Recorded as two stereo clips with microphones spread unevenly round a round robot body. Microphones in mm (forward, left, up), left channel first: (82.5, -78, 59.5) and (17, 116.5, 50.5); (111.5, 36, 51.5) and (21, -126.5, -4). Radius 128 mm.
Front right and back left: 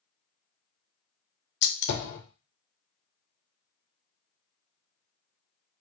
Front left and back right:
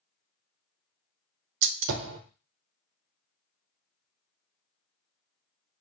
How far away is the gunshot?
About 0.5 m.